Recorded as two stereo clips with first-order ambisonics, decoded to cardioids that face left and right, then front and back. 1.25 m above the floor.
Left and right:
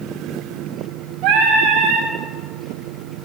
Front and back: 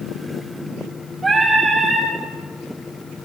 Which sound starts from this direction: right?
Singing, at 1.2 s.